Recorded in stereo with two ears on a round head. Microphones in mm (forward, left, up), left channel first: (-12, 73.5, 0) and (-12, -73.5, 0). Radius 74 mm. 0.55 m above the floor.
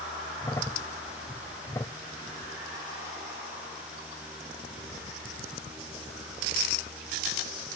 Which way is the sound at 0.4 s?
15° left (ahead or behind).